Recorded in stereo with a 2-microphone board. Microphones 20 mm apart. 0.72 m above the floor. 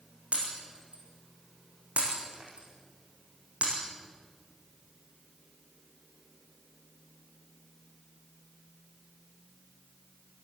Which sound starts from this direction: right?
Breaking glass, at 0.3 s.